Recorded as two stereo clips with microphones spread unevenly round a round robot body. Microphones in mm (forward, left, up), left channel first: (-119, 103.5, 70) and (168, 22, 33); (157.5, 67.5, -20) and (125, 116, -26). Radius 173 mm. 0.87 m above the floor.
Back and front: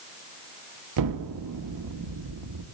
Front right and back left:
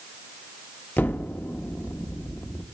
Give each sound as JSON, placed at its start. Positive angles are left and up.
{"t": 1.0, "sound": "an explosion", "azimuth_deg": 5, "distance_m": 1.2}